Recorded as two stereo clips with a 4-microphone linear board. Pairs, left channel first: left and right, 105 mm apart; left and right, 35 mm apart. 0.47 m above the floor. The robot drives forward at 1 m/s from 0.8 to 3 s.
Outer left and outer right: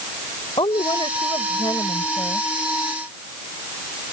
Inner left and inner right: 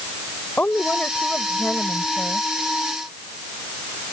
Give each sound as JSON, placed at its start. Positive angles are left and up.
{"t": 0.6, "sound": "a woman speaking", "side_deg": 55}